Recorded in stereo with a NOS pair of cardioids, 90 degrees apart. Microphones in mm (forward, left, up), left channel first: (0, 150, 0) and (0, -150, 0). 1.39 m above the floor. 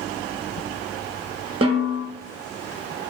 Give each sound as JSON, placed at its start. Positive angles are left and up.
{"t": 1.6, "sound": "a snare drum", "azimuth_deg": -20, "distance_m": 1.2}